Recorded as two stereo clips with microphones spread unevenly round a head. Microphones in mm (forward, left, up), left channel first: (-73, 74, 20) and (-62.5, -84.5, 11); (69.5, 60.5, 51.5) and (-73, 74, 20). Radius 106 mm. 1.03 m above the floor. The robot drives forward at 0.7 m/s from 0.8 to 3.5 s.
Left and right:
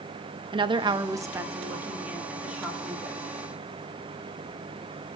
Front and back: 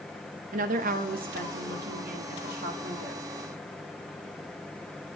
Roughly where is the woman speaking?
Behind right.